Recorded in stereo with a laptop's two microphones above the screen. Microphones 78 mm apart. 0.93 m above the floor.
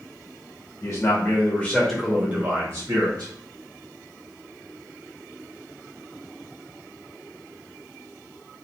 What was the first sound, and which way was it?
A man speaking, 45° left (ahead or behind).